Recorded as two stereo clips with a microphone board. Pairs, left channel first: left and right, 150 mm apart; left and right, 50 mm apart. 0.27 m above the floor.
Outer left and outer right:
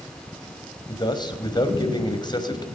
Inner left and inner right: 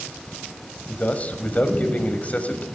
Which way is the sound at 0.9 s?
30° left (ahead or behind).